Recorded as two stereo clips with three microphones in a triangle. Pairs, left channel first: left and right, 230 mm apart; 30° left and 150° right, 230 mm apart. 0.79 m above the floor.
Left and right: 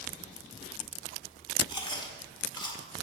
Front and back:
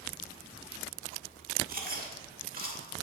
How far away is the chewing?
About 1.4 m.